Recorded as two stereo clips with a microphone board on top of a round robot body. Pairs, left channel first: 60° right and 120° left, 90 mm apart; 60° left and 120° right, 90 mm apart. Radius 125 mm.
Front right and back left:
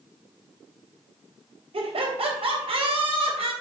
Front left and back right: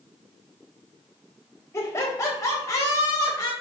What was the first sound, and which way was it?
Laughter, 120° left.